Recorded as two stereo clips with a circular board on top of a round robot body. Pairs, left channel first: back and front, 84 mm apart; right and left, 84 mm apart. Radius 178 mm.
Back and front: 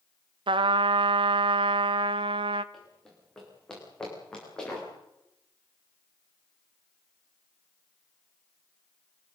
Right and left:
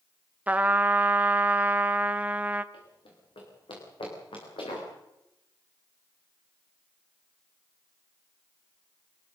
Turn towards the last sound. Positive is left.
turn(degrees=-100)